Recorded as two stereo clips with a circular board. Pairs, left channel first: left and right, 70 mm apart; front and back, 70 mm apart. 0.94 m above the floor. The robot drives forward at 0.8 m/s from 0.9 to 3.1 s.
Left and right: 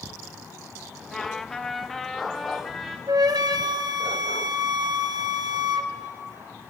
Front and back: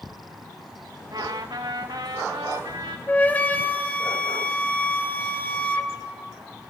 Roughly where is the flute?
Ahead right.